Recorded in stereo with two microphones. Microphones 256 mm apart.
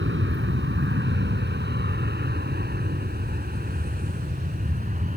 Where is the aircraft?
45° right (ahead or behind); by 5.2 s 30° right (ahead or behind).